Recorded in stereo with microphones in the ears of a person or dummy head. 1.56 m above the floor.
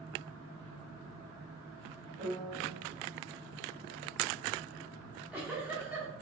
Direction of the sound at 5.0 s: 10° right (ahead or behind).